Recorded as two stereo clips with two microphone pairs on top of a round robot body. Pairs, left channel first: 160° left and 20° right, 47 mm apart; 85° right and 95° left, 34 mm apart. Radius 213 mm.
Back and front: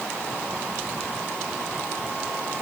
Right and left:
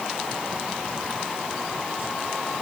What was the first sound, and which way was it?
Only background noise.